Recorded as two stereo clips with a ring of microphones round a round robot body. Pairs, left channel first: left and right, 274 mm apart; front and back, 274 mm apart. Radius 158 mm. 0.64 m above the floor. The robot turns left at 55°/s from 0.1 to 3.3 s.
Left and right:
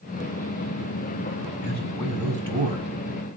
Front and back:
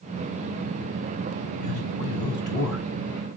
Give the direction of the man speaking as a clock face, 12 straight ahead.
11 o'clock.